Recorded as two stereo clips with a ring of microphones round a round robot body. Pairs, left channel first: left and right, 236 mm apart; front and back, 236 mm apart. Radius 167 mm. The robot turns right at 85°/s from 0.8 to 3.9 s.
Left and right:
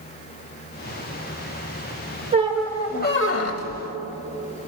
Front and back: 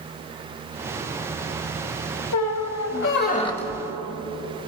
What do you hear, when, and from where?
2.3 s a squeak: 25° right, 0.7 m; by 3.8 s 105° left, 0.7 m